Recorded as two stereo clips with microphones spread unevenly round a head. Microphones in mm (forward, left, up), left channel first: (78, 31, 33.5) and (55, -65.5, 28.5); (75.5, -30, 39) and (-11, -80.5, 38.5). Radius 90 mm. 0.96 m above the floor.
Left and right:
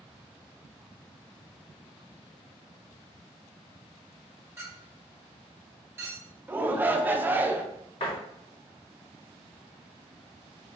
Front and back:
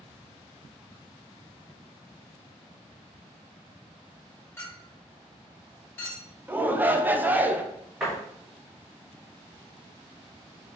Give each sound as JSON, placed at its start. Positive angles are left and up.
{"t": 4.6, "sound": "a clink", "azimuth_deg": -35, "distance_m": 2.0}
{"t": 6.5, "sound": "a shout", "azimuth_deg": -115, "distance_m": 0.6}
{"t": 8.0, "sound": "a door slam", "azimuth_deg": 125, "distance_m": 1.0}